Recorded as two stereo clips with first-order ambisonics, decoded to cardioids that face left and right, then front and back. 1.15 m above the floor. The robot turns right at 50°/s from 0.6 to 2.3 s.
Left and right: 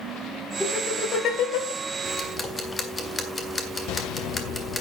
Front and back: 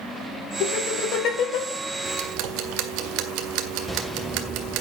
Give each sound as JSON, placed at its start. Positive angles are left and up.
{"t": 0.6, "sound": "laughter", "azimuth_deg": 10, "distance_m": 6.0}
{"t": 2.0, "sound": "ticking", "azimuth_deg": 150, "distance_m": 1.8}